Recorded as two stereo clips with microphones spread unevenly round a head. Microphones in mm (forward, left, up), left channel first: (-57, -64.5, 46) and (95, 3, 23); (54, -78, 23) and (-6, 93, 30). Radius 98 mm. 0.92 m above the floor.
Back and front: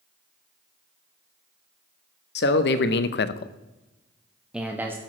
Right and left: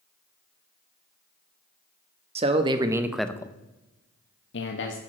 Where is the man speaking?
170° left, 1.3 m; by 5.0 s 50° right, 1.5 m.